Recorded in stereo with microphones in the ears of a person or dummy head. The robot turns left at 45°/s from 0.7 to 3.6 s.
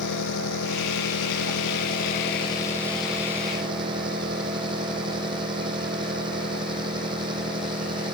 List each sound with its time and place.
0.0 s an engine running: 105° left; by 8.2 s 25° right